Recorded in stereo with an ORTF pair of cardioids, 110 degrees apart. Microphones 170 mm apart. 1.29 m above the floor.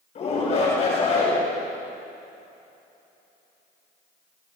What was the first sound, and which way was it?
A shout, 40° left.